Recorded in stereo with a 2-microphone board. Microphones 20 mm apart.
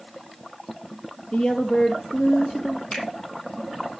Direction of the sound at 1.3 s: 70° left (ahead or behind).